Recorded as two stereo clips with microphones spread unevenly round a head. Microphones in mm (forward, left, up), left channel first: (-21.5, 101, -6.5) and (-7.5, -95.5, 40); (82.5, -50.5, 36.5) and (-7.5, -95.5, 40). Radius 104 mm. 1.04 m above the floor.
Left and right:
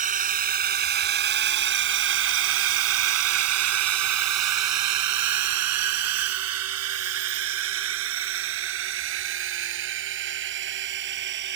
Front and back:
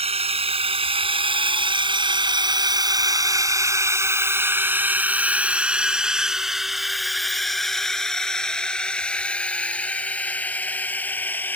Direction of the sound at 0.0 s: 135° right.